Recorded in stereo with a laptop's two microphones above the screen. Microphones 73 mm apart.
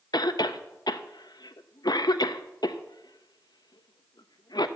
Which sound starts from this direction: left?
A cough, at 0.1 s.